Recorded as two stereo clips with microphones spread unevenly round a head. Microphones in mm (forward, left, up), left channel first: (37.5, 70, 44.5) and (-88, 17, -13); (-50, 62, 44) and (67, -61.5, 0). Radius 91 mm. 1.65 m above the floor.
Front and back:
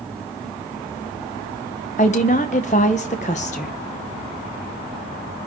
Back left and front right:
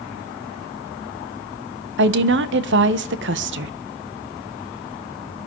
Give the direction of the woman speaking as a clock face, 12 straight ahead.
1 o'clock.